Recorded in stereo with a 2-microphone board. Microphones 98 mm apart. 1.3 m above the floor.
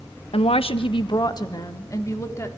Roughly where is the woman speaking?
Left.